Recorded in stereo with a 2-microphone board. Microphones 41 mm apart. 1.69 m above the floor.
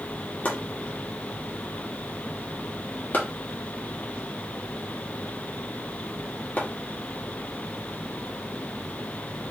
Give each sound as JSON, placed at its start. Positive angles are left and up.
{"t": 0.5, "sound": "chopping", "side_deg": 45, "distance_m": 1.4}